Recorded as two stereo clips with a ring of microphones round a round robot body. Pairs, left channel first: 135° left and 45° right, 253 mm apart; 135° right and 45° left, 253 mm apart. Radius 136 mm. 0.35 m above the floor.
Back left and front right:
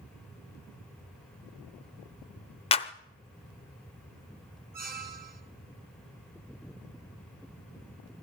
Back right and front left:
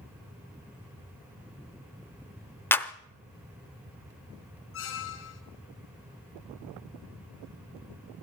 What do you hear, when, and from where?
2.7 s a clap: 155° left, 0.6 m
4.7 s a squeak: 100° right, 1.6 m